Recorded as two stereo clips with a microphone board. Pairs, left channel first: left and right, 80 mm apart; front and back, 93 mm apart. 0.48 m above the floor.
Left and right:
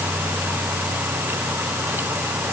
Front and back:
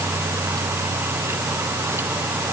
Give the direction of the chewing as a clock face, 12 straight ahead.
I don't hear chewing.